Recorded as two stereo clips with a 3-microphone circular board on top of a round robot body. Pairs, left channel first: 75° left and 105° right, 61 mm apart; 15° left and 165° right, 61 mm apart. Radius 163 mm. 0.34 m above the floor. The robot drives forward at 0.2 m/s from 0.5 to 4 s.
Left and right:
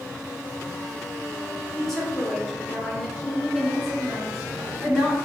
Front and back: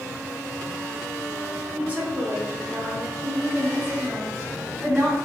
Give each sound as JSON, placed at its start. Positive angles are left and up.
{"t": 1.8, "sound": "a woman speaking", "azimuth_deg": 150, "distance_m": 1.3}